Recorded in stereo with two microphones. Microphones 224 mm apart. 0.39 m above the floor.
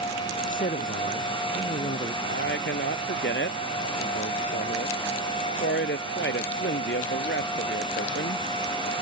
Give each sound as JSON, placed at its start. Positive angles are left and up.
{"t": 0.4, "sound": "a man speaking", "side_deg": 40}
{"t": 2.2, "sound": "a man speaking", "side_deg": 55}